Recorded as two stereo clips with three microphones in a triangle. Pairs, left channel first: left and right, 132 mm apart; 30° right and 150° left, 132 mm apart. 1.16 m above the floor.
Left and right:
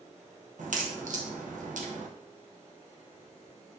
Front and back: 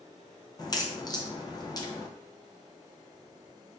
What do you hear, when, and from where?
0.6 s a crack: 90° right, 0.9 m